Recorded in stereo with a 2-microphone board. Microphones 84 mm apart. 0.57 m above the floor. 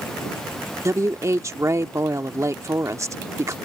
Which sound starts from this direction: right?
A woman speaking, at 0.8 s.